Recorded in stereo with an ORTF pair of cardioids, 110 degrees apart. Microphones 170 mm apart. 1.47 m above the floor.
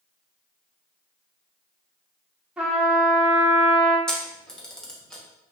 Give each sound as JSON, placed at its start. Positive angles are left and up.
{"t": 2.6, "sound": "a trumpet", "azimuth_deg": -5, "distance_m": 0.9}
{"t": 4.1, "sound": "a camera shutter", "azimuth_deg": 5, "distance_m": 0.8}